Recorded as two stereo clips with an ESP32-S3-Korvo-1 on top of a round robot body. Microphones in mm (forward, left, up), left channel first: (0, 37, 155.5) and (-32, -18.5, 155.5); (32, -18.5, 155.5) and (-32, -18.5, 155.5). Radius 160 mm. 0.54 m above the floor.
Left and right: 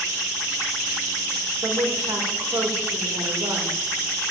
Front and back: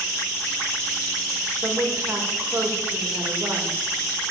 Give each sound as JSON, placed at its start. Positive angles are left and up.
{"t": 1.6, "sound": "a woman speaking", "azimuth_deg": -130, "distance_m": 2.0}